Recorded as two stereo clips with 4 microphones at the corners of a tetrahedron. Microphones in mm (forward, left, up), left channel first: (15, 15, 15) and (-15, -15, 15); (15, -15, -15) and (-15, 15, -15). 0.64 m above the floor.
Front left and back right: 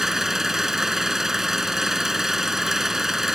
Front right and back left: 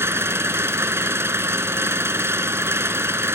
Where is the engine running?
145° left.